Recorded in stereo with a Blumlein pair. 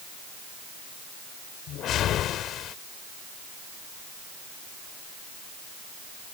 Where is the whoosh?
30° left.